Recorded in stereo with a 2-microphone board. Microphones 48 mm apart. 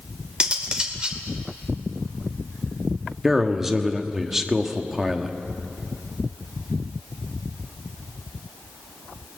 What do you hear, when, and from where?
0.4 s cutlery clinking: 20° right (ahead or behind), 2 m
3.2 s a man speaking: 5° right (ahead or behind), 1.4 m